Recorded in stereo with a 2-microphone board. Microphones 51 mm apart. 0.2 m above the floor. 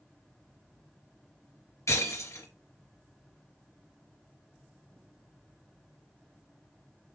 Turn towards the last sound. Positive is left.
turn(degrees=70)  # may be behind; listen again after turning